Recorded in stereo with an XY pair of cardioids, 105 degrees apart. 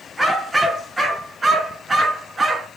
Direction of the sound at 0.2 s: 5° right.